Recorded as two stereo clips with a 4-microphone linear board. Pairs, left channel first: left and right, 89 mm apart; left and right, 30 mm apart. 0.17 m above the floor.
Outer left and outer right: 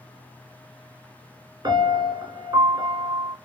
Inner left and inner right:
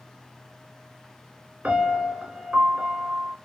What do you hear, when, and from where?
1.6 s a piano: 50° right (ahead or behind), 2.5 m